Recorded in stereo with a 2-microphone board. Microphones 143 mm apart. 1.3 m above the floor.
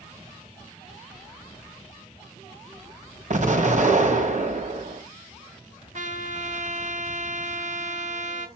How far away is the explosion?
About 1.8 m.